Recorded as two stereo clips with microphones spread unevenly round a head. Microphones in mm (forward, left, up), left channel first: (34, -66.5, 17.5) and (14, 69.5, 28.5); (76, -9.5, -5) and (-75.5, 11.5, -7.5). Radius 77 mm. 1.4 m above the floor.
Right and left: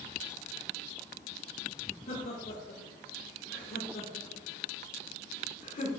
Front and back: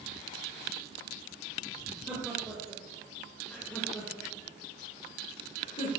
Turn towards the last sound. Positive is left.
turn(degrees=-50)